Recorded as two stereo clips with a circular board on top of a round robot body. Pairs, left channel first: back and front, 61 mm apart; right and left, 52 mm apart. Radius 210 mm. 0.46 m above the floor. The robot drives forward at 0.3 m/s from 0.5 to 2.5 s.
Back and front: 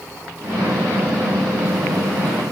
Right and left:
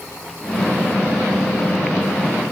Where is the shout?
No shout in this recording.